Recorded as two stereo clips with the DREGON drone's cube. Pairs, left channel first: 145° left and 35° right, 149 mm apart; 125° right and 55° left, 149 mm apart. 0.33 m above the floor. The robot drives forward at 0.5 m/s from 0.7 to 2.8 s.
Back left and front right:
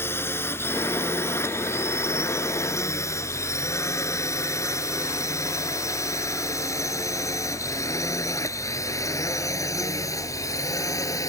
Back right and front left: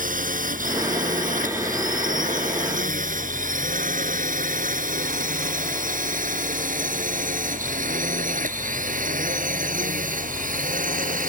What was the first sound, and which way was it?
A drone, 70° left.